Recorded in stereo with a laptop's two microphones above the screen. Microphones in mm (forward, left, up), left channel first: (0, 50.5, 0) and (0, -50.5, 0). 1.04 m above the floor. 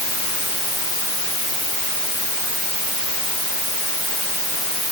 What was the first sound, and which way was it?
Only background noise.